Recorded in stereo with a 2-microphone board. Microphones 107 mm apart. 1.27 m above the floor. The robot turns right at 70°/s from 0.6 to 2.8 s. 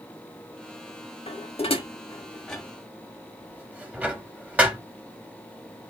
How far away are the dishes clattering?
About 1.4 m.